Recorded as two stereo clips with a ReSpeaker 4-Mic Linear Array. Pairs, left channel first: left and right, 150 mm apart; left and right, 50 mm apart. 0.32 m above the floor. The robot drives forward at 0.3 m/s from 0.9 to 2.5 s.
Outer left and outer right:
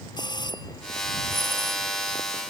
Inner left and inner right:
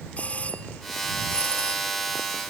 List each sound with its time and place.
0.2 s a doorbell: 30° left (ahead or behind)